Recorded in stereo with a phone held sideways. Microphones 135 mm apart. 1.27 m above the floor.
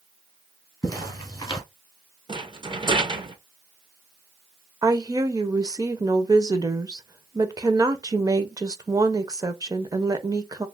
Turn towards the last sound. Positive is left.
turn(degrees=-30)  # may be behind; listen again after turning